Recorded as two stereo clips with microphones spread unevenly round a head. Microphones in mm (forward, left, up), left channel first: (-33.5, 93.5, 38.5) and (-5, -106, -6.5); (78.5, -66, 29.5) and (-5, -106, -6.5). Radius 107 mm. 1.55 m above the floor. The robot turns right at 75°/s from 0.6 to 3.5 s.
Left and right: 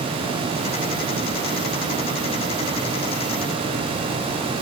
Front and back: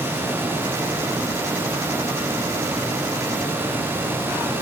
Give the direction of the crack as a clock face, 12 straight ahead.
No crack in this recording.